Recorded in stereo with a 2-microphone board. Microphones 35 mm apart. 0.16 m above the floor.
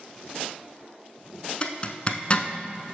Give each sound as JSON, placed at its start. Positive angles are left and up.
{"t": 1.6, "sound": "a zipper", "side_deg": 35, "distance_m": 0.6}